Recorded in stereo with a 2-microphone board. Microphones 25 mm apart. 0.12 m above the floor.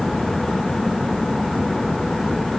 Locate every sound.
Only background noise.